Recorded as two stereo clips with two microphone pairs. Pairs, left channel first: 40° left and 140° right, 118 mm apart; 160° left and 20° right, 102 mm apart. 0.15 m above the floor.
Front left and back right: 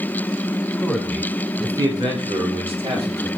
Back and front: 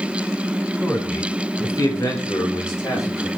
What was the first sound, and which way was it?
A man speaking, 105° left.